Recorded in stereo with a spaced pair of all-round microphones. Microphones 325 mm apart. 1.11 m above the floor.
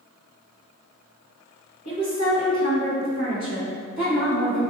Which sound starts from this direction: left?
A woman speaking, at 1.9 s.